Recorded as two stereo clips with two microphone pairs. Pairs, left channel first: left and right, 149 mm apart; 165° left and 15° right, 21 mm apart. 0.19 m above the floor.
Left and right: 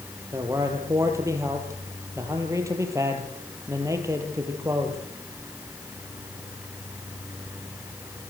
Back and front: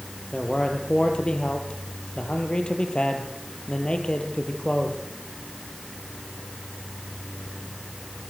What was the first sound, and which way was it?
A man speaking, 160° right.